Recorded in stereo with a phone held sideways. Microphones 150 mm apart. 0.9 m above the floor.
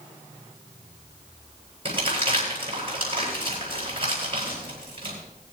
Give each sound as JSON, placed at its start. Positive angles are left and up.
{"t": 1.9, "sound": "crumpling", "side_deg": -40, "distance_m": 8.5}